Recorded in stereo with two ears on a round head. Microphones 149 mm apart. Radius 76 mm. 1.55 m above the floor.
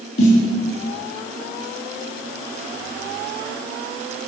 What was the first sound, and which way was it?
A snare drum, 65° left (ahead or behind).